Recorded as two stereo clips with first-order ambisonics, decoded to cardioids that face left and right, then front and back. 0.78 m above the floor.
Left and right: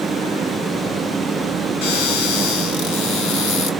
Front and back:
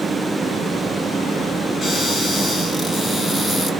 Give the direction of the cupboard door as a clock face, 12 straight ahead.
9 o'clock.